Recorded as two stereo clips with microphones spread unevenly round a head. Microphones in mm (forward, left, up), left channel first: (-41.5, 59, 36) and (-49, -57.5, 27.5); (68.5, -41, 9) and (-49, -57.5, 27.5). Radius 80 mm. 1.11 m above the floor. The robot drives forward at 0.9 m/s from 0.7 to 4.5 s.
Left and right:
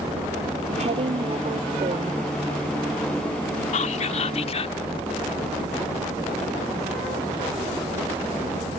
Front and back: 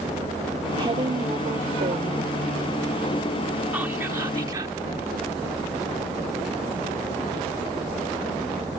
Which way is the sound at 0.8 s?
125° right.